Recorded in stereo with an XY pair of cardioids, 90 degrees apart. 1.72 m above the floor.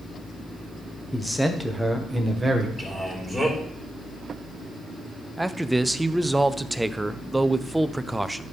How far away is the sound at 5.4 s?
About 0.6 m.